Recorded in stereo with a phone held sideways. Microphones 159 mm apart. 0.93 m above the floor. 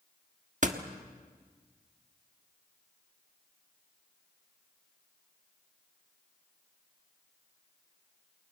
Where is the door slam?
50° right (ahead or behind), 1.4 m.